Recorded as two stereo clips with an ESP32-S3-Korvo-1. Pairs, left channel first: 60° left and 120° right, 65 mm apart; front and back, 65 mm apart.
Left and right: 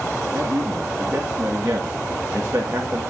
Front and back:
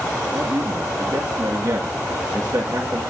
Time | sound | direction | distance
0.3 | a man speaking | 175° right | 2.0 m